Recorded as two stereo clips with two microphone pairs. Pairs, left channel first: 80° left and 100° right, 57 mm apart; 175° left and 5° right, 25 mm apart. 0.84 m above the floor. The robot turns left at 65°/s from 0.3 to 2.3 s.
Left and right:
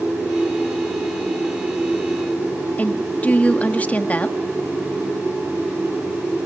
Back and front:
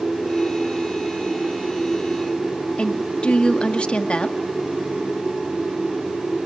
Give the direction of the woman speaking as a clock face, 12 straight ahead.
7 o'clock.